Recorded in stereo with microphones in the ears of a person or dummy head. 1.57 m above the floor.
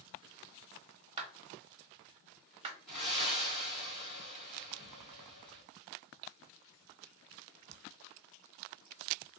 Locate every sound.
1.2 s a clap: 30° right (ahead or behind), 1.0 m
2.9 s breathing: 5° right (ahead or behind), 1.5 m